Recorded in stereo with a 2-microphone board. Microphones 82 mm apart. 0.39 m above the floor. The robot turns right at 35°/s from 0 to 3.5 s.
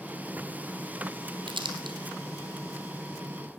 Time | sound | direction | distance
1.5 | crumpling | 85° right | 2 m